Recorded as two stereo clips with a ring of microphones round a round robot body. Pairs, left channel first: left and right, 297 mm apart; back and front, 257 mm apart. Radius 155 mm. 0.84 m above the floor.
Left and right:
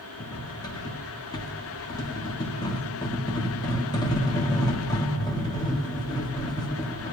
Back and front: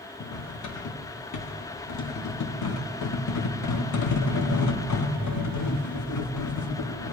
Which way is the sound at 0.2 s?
170° left.